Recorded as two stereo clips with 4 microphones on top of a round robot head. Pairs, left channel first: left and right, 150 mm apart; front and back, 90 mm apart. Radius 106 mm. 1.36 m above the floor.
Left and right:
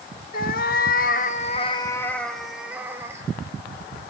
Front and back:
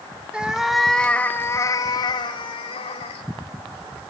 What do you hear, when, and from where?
0.3 s a cat meowing: 105° left, 1.3 m; by 3.2 s 15° right, 1.7 m